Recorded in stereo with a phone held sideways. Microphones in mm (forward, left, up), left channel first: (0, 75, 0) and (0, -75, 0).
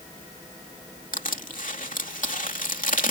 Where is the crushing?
65° left (ahead or behind).